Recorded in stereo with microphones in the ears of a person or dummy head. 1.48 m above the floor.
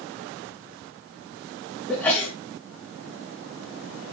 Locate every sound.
1.9 s a sneeze: 10° left (ahead or behind), 1.9 m